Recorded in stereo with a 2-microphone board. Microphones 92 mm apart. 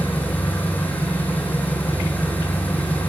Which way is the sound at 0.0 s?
20° left (ahead or behind).